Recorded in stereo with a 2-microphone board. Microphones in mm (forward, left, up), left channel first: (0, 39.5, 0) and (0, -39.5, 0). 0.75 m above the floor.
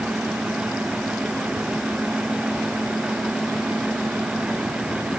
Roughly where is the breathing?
No breathing in this recording.